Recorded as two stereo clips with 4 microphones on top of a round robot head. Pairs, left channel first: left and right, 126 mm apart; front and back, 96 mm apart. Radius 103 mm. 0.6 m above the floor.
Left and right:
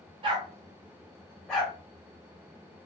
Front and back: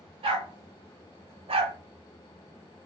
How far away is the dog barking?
About 0.7 m.